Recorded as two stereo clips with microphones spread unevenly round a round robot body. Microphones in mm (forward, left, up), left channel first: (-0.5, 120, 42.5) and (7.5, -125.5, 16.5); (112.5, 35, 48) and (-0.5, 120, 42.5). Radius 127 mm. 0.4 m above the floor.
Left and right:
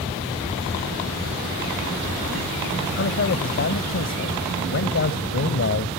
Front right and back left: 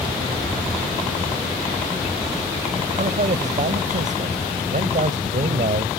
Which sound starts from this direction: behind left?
A man speaking, at 3.0 s.